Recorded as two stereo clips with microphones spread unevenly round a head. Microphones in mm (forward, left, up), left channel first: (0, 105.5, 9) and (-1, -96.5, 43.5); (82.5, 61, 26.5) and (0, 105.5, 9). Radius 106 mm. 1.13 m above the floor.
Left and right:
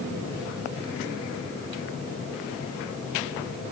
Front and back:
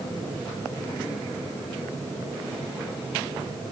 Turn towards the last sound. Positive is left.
No sound to turn to.